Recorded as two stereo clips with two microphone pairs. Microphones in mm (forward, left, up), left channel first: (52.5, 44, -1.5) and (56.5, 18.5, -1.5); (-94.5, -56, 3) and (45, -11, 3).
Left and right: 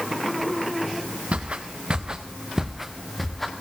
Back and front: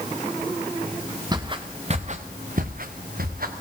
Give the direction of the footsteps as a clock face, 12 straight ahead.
2 o'clock.